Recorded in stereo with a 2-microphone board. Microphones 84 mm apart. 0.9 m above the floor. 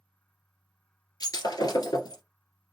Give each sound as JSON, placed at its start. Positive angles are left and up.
{"t": 1.2, "sound": "breaking glass", "side_deg": 50, "distance_m": 1.8}